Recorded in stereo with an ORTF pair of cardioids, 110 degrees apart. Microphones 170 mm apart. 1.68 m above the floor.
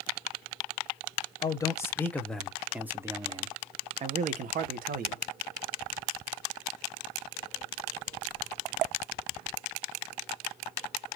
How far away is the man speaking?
About 1.4 m.